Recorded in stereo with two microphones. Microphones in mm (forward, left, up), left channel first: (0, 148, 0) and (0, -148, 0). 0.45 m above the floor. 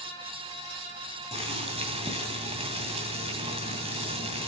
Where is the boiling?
20° right (ahead or behind), 2.5 m.